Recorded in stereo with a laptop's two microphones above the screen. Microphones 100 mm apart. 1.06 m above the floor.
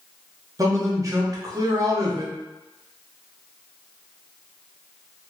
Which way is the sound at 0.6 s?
35° right (ahead or behind).